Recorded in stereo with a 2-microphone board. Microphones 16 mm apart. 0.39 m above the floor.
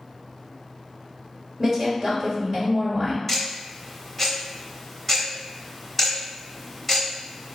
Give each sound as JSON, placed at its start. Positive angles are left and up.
{"t": 1.6, "sound": "a woman speaking", "side_deg": -35, "distance_m": 1.3}
{"t": 3.3, "sound": "ticking", "side_deg": 5, "distance_m": 0.8}